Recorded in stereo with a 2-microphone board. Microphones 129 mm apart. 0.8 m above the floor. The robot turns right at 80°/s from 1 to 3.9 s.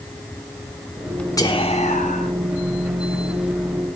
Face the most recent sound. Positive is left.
turn(degrees=-130)